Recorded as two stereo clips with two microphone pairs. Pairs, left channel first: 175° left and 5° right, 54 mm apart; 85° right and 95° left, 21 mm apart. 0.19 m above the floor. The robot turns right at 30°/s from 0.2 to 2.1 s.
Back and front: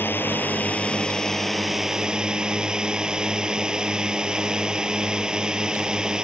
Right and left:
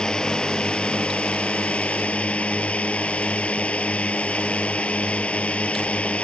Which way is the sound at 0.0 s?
140° right.